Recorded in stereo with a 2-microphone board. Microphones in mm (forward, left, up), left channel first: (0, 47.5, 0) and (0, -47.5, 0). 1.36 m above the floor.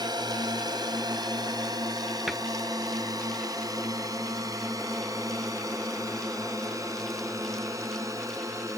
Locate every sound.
0.0 s a drone: 45° right (ahead or behind); by 8.8 s 35° right (ahead or behind)
2.3 s a cupboard door: 5° right (ahead or behind)